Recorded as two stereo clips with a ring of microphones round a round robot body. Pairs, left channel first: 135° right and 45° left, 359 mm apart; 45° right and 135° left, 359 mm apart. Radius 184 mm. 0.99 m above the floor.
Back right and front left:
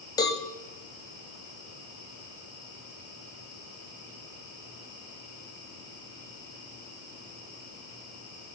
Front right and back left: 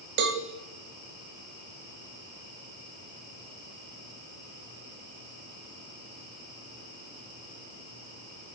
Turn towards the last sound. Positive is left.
turn(degrees=155)